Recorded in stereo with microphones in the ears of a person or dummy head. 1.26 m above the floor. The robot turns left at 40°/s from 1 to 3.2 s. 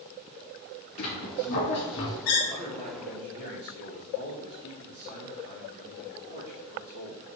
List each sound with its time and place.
1.0 s a squeak: 135° left, 2 m; by 2.4 s 75° left, 2 m
2.5 s a man speaking: 20° left (ahead or behind), 2.5 m; by 7.3 s 50° left (ahead or behind), 2.5 m